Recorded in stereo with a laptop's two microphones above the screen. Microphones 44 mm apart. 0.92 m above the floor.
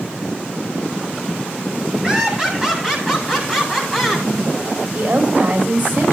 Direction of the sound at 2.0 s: 15° right (ahead or behind).